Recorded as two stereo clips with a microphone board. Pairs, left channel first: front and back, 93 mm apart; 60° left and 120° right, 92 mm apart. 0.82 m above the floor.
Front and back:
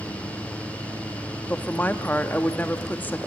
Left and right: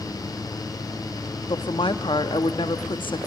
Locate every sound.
1.5 s a woman speaking: 70° left, 0.9 m